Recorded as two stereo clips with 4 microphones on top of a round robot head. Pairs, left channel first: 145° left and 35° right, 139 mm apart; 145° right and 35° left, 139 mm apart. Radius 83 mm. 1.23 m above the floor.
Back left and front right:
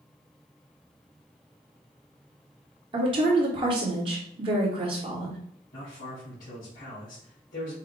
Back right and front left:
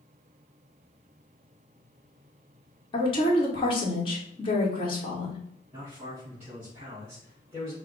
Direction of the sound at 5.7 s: 110° left.